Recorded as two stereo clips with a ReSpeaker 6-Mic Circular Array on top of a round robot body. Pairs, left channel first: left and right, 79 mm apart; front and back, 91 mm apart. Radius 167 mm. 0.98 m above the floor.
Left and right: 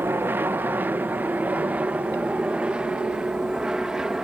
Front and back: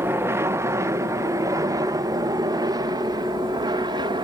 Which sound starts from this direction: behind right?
An aircraft, at 0.0 s.